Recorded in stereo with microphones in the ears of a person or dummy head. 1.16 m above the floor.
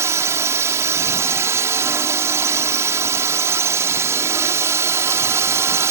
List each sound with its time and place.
0.0 s a drone: 15° right (ahead or behind)